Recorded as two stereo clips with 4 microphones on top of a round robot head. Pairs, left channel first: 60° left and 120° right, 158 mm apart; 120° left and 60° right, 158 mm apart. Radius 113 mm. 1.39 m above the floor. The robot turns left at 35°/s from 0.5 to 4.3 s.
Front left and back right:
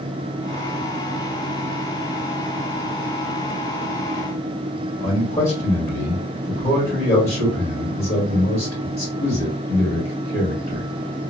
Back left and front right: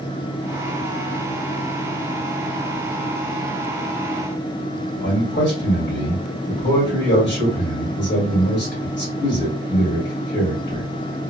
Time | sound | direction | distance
5.0 | a man speaking | 110° left | 2.5 m